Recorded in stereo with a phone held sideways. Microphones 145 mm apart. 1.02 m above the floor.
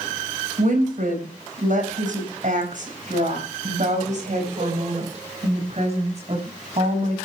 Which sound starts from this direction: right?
A woman speaking, at 0.6 s.